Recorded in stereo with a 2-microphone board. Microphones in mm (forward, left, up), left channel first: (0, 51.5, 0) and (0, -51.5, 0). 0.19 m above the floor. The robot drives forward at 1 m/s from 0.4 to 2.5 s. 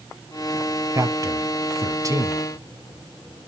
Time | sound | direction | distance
0.9 | a man speaking | 30° right (ahead or behind) | 1.6 m